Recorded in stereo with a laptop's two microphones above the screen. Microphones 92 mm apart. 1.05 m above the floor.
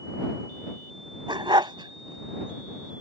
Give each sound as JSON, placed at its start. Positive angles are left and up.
{"t": 1.3, "sound": "a dog barking", "side_deg": -60}